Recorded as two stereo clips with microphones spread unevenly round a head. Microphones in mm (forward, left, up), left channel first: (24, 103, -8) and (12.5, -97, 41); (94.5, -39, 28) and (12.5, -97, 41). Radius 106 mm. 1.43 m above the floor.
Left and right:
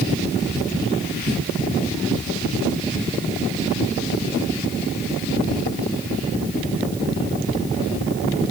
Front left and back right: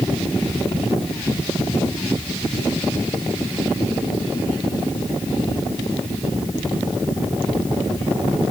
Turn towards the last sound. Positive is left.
No sound to turn to.